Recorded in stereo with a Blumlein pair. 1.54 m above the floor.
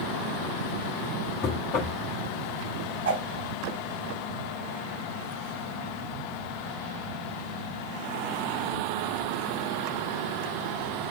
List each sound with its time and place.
1.4 s knocking: 35° left, 2.5 m
3.0 s a whoosh: 60° right, 4.5 m